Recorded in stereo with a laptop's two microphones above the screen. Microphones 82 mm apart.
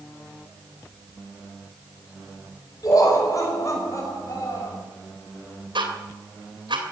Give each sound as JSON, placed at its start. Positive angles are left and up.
{"t": 2.8, "sound": "laughter", "side_deg": 50, "distance_m": 4.5}
{"t": 5.8, "sound": "ticking", "side_deg": -85, "distance_m": 2.5}